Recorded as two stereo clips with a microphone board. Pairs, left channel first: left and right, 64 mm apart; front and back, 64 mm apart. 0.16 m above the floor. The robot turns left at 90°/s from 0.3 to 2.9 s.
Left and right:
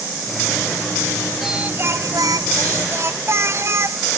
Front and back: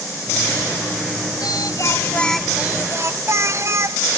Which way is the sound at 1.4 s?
Straight ahead.